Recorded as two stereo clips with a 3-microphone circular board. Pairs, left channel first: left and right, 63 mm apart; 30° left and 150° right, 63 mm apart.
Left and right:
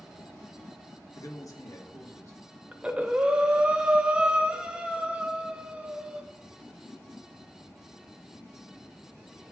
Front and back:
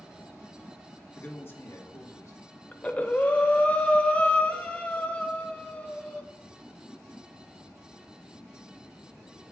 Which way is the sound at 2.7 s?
25° right.